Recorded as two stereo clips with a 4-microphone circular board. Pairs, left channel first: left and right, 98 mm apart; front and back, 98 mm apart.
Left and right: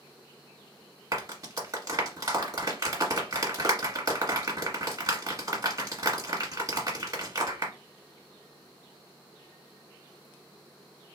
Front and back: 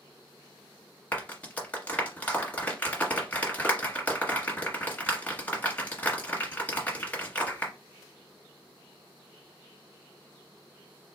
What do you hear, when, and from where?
1.1 s a clap: 65° right, 1.4 m